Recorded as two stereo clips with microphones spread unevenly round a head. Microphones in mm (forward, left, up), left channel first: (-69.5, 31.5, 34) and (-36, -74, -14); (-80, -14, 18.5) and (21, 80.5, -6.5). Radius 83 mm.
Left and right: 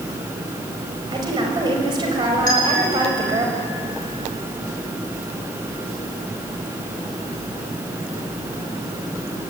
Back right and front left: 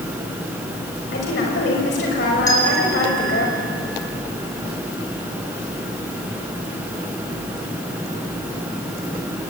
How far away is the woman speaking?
About 6 m.